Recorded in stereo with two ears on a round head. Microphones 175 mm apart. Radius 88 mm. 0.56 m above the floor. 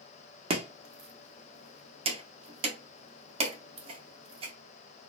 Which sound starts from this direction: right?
Chopping, at 0.5 s.